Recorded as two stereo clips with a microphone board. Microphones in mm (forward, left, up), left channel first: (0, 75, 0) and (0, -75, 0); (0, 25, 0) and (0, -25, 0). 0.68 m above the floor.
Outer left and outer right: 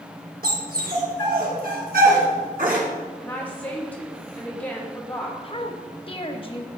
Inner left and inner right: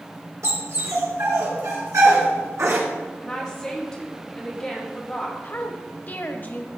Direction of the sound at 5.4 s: 35° left (ahead or behind).